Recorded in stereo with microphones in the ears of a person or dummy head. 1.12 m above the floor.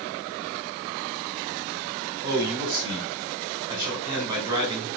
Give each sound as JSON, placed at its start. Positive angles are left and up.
{"t": 2.2, "sound": "a man speaking", "side_deg": -25, "distance_m": 4.5}